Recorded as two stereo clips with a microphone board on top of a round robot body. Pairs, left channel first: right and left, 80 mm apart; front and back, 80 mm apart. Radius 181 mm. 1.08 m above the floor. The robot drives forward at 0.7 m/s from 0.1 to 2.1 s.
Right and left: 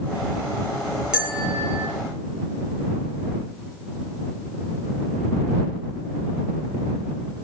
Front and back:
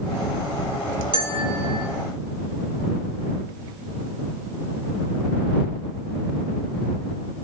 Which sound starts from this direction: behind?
A bell, at 1.1 s.